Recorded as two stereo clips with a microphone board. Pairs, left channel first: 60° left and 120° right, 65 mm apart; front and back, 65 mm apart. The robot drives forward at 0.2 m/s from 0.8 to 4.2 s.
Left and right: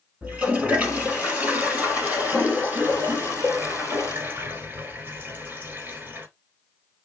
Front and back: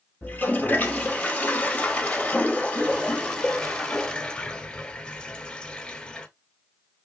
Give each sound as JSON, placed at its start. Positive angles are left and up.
{"t": 0.2, "sound": "a toilet flushing", "azimuth_deg": -55, "distance_m": 2.0}